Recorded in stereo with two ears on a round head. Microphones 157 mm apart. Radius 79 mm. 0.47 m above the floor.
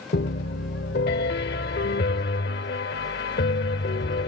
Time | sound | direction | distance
0.1 | a piano | 60° left (ahead or behind) | ?